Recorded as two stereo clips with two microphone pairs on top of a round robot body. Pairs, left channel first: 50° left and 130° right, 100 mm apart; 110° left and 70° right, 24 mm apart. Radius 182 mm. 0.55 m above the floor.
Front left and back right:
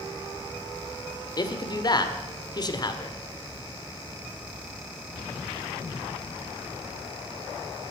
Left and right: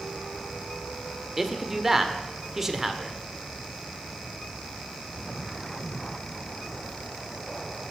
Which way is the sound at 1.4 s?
5° left.